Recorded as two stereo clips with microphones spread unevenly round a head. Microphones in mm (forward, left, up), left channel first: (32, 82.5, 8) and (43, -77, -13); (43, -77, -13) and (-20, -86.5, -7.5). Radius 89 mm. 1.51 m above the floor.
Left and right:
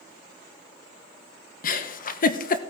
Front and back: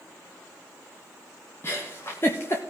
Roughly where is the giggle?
Left.